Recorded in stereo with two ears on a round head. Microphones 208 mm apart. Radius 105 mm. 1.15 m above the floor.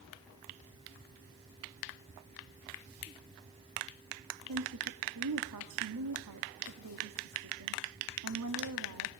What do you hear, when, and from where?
4.5 s a woman speaking: 80° right, 2.0 m